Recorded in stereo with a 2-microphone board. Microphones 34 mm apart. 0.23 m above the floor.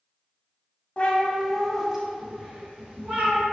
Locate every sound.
1.0 s a cat meowing: 40° left (ahead or behind), 0.6 m; by 3.5 s 40° right (ahead or behind), 1.2 m